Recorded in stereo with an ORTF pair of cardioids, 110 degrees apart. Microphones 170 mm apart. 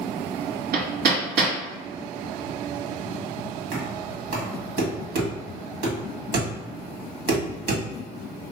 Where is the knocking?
65° right, 1.7 m.